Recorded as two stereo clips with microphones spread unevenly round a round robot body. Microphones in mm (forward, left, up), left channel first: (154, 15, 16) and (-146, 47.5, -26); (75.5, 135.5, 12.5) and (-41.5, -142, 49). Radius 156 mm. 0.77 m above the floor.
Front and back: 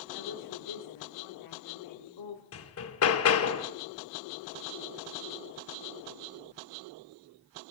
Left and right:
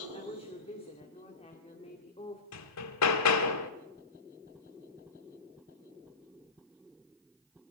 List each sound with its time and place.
0.1 s a woman speaking: straight ahead, 2 m
2.5 s hammering: 35° left, 1.2 m